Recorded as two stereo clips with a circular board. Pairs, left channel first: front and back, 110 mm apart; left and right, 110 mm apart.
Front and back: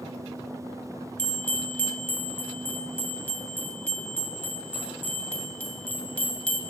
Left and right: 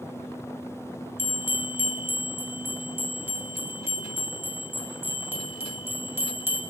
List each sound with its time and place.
1.2 s a bell: 55° right, 0.6 m